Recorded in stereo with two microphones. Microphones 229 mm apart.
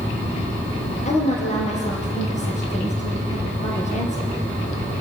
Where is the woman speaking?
30° left (ahead or behind), 3 m.